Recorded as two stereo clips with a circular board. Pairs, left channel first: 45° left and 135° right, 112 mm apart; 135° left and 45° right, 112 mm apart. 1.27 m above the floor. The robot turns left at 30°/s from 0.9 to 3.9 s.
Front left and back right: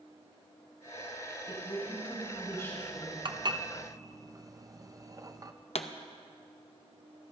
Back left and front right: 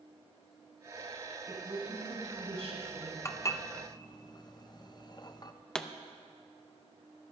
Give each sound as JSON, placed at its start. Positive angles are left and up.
{"t": 1.5, "sound": "a woman speaking", "azimuth_deg": 10, "distance_m": 3.5}
{"t": 3.2, "sound": "dishes clattering", "azimuth_deg": -165, "distance_m": 0.5}
{"t": 5.8, "sound": "a pop", "azimuth_deg": 50, "distance_m": 0.6}